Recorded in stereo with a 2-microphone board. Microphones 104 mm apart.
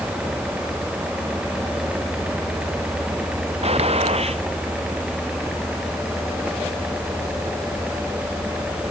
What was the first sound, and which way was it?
A gunshot, 75° right (ahead or behind).